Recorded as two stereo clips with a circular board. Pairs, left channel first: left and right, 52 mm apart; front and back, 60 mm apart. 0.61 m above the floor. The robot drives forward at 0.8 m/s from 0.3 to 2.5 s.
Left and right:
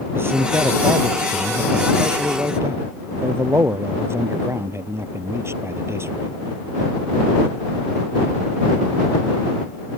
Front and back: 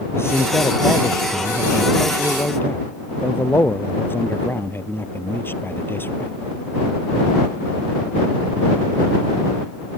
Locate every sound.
0.1 s a man speaking: 45° right; by 6.3 s 50° right